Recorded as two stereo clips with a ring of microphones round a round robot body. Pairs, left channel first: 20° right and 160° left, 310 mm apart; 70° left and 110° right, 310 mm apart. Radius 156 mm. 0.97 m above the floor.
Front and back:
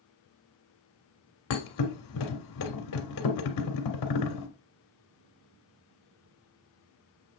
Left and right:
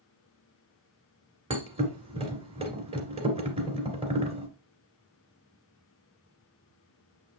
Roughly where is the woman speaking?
No woman speaking in this recording.